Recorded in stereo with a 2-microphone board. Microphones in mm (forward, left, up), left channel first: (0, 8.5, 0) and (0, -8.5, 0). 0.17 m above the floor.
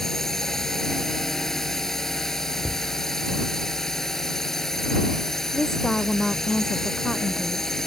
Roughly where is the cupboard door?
Right.